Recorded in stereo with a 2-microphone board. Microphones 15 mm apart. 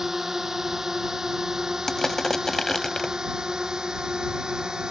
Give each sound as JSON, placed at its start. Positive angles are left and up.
{"t": 0.0, "sound": "a drone", "side_deg": -30}
{"t": 1.9, "sound": "crushing", "side_deg": 25}